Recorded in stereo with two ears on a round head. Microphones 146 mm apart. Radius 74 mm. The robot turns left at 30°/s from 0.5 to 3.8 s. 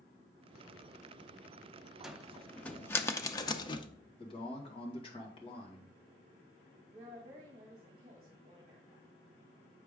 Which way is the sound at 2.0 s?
5° right (ahead or behind).